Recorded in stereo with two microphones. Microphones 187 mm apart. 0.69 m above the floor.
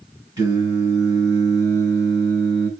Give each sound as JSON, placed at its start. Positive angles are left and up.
{"t": 0.4, "sound": "singing", "side_deg": -20, "distance_m": 6.0}